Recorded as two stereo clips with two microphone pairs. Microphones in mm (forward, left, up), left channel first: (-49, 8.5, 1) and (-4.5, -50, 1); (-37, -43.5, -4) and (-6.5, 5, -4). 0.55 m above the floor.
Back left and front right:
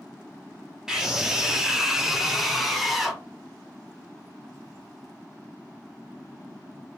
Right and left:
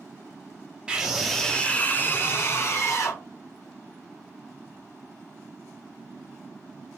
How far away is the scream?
About 0.9 m.